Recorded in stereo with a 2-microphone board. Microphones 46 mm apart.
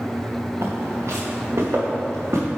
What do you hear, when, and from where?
0.6 s footsteps: 75° right (ahead or behind), 1.4 m; by 2.5 s 80° right, 2.5 m